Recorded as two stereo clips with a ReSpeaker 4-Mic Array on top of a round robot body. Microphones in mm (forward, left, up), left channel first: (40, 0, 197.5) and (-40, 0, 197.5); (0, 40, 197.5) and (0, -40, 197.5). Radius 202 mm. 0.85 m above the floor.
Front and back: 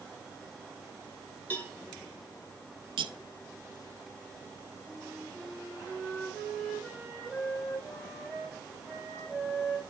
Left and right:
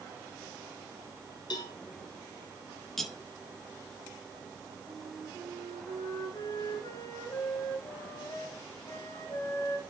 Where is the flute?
105° left, 5 m.